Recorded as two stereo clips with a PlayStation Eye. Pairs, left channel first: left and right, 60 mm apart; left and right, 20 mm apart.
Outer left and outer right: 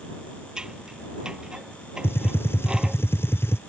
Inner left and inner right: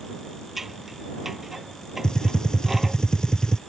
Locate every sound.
0.6 s scissors: 10° right (ahead or behind)
2.0 s a gunshot: 45° left (ahead or behind)